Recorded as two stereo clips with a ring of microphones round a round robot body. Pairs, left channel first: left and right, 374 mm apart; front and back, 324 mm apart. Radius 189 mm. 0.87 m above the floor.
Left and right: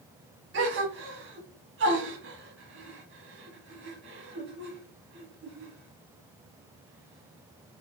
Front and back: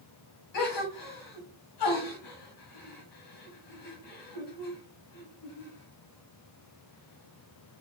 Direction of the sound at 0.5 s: 30° right.